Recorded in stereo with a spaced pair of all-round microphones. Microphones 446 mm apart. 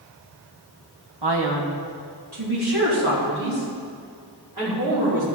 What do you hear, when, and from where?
1.2 s a man speaking: 65° right (ahead or behind), 1.7 m; by 5.2 s 55° right (ahead or behind), 7 m